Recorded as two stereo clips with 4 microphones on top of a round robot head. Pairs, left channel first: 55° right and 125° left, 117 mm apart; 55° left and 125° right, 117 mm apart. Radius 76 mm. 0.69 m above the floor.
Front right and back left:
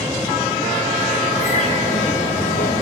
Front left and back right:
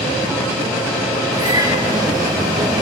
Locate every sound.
1.3 s a bird: 70° right, 4 m